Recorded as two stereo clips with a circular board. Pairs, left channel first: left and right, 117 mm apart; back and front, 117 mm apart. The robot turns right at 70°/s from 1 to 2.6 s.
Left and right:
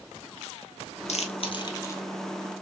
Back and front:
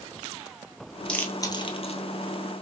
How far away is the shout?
No shout in this recording.